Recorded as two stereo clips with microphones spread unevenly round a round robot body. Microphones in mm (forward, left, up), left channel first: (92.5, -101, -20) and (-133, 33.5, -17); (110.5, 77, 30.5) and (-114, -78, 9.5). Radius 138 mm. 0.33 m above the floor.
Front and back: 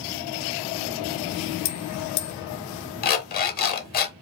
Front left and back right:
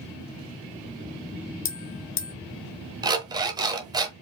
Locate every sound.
1.6 s a bell: 15° right, 0.9 m
3.0 s an alarm clock: 75° right, 0.9 m